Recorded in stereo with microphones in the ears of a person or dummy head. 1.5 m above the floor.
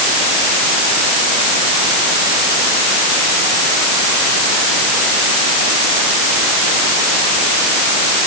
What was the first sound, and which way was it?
Only background noise.